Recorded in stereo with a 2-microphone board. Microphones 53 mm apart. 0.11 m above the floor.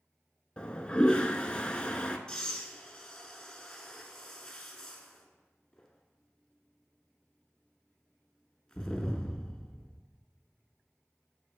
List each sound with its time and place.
0.6 s a toilet flushing: 15° left (ahead or behind), 0.6 m
2.3 s breathing: 10° left (ahead or behind), 0.9 m